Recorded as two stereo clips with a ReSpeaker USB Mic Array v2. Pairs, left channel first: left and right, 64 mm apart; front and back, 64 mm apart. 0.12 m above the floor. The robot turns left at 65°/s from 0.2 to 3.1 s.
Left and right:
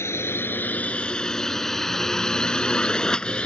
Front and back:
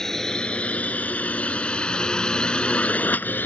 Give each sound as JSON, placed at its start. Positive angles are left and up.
{"t": 0.0, "sound": "a drone", "azimuth_deg": 80}